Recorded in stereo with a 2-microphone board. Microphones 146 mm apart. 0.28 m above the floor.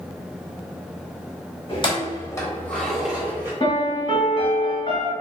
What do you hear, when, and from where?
1.7 s keys jangling: 40° left (ahead or behind), 1.0 m; by 3.5 s 15° right (ahead or behind), 0.9 m
3.6 s a piano: 40° left (ahead or behind), 1.0 m